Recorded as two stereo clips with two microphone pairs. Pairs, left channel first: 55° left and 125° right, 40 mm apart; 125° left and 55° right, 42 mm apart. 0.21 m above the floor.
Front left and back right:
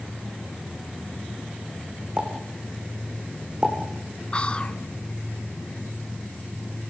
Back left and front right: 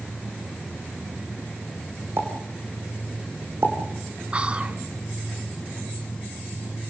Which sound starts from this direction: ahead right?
A pop, at 2.2 s.